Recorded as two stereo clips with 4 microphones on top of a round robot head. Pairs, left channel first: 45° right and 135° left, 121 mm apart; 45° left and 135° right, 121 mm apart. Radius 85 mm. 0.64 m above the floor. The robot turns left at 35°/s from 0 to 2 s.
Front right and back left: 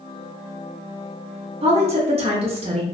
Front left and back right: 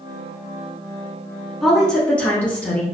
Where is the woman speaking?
135° left, 1.1 m; by 2.9 s 120° left, 1.1 m.